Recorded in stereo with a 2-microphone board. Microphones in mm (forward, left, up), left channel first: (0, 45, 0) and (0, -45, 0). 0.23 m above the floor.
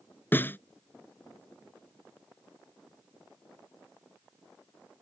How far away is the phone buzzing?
I don't hear a phone buzzing.